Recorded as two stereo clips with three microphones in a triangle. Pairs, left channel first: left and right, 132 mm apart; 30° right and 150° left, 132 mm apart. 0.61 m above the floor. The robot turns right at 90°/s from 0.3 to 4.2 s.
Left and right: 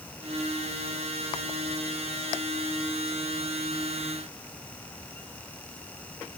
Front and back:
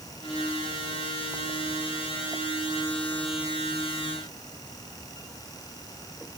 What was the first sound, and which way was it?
Only background noise.